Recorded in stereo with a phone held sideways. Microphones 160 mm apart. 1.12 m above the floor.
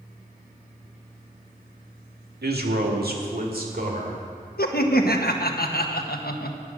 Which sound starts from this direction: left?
Laughter, at 4.6 s.